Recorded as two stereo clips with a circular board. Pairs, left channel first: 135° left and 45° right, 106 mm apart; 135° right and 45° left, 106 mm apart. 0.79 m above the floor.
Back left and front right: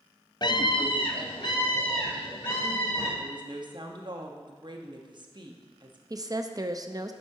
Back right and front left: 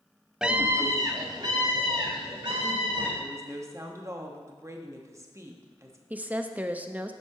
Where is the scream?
130° left, 0.5 m; by 3.1 s 90° left, 3 m.